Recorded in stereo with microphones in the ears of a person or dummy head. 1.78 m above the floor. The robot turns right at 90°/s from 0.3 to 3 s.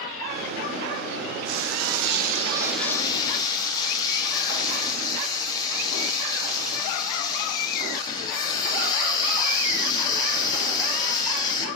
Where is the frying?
120° right, 0.6 m; by 11.7 s 20° left, 0.6 m.